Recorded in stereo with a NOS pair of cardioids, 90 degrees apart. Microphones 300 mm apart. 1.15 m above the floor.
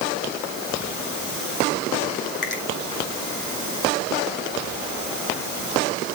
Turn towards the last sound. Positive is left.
turn(degrees=35)